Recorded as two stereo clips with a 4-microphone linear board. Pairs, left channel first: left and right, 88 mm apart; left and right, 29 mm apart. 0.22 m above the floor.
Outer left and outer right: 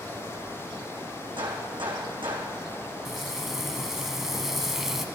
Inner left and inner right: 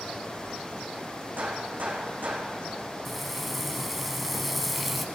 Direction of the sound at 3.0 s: 5° right (ahead or behind).